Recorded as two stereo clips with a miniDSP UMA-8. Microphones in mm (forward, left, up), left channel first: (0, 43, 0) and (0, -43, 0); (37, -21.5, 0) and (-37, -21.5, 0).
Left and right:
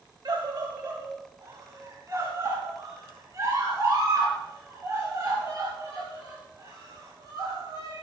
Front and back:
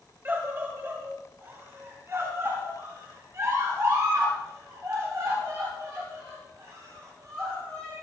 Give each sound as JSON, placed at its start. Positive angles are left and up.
{"t": 0.2, "sound": "a scream", "azimuth_deg": -120, "distance_m": 2.0}